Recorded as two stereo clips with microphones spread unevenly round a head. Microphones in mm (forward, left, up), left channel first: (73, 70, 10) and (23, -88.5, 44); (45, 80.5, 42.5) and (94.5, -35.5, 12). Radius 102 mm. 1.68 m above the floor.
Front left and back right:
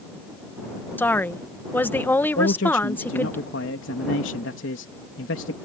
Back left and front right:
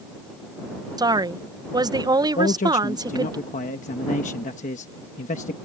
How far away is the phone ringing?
No phone ringing in this recording.